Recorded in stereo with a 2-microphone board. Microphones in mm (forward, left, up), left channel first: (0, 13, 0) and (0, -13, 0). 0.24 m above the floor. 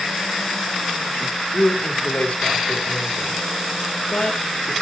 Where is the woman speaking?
65° left (ahead or behind), 4.5 m.